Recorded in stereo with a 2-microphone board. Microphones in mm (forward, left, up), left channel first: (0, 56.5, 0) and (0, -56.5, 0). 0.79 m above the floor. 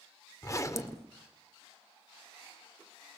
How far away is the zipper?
About 1.7 m.